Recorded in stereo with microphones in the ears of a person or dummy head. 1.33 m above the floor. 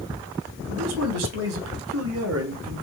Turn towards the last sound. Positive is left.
turn(degrees=-75)  # may be behind; listen again after turning